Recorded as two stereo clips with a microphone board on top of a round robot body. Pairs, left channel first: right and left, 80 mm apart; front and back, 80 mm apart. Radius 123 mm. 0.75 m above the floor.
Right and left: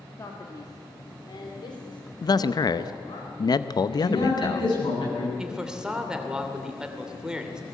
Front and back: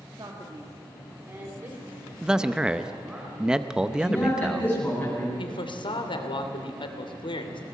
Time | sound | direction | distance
0.2 | a man speaking | 140° right | 2 m
2.2 | a man speaking | 100° right | 0.8 m
3.9 | a man speaking | 70° right | 9 m
5.4 | a man speaking | 10° left | 3 m